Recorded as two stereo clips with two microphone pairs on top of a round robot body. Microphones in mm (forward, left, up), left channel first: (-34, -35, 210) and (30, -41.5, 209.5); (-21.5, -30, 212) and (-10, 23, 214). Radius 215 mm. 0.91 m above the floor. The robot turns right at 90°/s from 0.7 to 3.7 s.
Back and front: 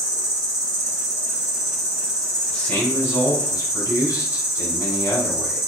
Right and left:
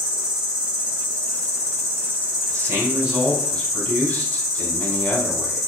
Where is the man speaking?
95° left, 1.4 m; by 5.6 s 155° right, 1.4 m.